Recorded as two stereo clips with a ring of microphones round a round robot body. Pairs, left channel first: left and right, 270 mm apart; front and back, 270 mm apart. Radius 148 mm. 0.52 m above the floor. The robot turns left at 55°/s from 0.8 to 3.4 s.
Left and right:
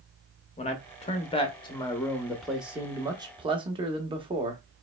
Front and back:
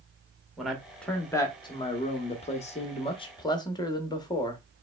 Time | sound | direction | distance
0.6 | a man speaking | 95° left | 0.8 m